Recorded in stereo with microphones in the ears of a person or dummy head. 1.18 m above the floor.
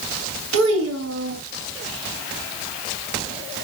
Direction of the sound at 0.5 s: 85° right.